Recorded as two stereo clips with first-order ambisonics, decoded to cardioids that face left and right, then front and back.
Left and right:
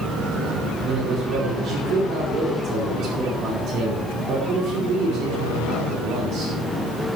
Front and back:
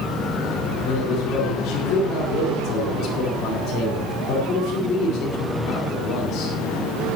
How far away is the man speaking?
About 5 m.